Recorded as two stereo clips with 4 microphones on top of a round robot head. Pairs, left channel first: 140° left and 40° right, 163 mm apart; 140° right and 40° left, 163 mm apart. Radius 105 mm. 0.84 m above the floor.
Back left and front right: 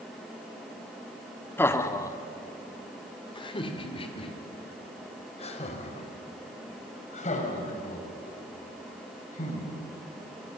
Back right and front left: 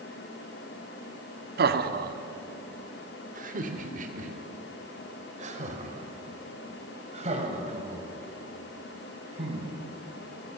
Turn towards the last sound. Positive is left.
turn(degrees=95)